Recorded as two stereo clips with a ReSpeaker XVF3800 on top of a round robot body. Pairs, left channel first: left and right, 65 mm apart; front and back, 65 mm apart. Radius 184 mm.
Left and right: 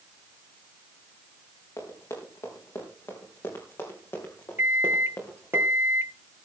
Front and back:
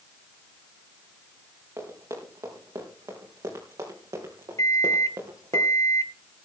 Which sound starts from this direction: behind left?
Running footsteps, at 1.8 s.